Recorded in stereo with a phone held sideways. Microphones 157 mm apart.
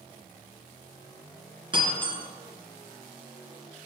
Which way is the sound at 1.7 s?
35° right (ahead or behind).